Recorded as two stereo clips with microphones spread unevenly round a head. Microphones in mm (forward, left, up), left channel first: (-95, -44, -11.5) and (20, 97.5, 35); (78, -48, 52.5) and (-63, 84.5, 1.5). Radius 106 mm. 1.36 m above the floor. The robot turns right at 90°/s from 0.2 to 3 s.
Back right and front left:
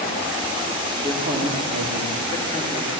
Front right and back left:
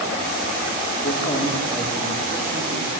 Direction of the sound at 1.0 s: 30° right.